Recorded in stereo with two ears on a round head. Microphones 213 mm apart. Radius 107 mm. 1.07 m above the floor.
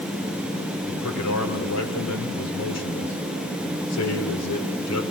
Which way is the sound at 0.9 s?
70° left (ahead or behind).